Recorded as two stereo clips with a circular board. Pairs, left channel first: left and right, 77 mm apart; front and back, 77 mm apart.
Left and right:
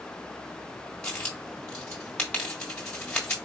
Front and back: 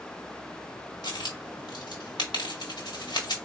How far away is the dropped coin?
About 1.5 m.